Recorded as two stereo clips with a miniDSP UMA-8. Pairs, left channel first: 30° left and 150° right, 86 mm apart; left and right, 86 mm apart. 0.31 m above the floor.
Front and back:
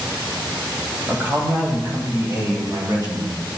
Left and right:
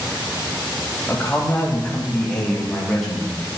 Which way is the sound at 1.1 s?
150° left.